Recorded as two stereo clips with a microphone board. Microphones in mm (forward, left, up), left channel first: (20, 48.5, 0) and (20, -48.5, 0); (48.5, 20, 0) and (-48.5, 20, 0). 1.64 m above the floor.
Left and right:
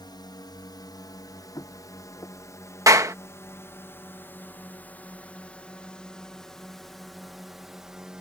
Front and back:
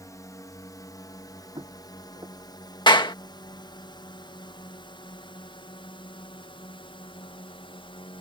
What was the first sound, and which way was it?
A drone, 55° left.